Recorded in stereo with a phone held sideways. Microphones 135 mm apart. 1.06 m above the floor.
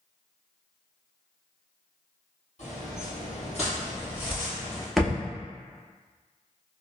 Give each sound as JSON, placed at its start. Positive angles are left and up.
{"t": 2.6, "sound": "footsteps", "side_deg": 60, "distance_m": 1.9}
{"t": 5.0, "sound": "a thud", "side_deg": 0, "distance_m": 0.6}